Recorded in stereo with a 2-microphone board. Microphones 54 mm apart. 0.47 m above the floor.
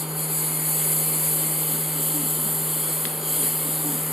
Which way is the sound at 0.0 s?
5° right (ahead or behind).